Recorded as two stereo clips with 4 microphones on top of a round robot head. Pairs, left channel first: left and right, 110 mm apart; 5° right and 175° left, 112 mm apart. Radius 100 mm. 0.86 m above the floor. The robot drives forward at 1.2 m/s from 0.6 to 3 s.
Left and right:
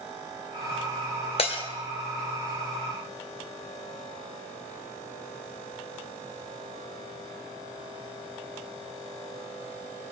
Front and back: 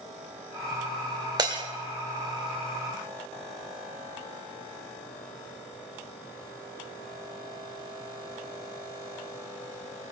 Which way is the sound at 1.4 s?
120° left.